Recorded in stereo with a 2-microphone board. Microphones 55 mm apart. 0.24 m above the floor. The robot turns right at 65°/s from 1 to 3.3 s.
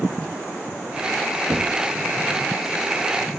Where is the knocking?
40° right (ahead or behind), 1.0 m; by 1.9 s 30° right (ahead or behind), 1.0 m.